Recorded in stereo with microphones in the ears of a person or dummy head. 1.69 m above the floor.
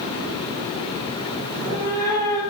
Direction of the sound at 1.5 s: 20° left (ahead or behind).